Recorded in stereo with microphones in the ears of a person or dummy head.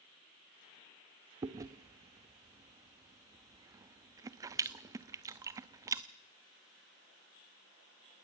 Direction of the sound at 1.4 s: 25° right (ahead or behind).